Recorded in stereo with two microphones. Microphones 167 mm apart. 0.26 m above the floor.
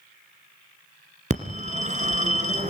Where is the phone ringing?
45° right (ahead or behind), 1.9 m.